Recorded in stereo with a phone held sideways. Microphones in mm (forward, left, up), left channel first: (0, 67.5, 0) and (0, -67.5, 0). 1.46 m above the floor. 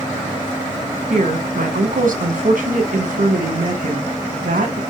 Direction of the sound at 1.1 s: 75° right (ahead or behind).